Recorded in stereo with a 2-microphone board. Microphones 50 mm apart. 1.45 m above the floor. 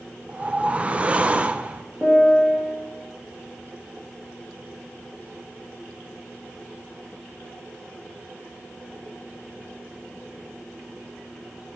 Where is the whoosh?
25° right (ahead or behind), 0.5 m.